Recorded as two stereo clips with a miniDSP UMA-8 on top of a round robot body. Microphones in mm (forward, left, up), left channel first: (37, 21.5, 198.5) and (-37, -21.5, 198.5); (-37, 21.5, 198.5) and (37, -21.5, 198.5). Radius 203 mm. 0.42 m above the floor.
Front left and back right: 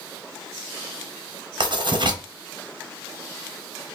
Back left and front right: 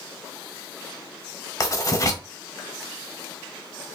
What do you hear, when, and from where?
1.6 s writing: 165° right, 0.9 m